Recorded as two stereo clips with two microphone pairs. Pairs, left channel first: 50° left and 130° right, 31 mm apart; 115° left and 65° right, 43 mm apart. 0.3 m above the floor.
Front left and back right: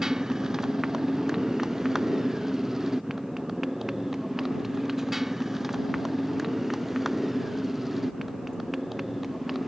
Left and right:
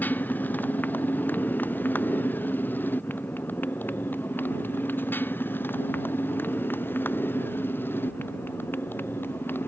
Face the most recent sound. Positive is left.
turn(degrees=150)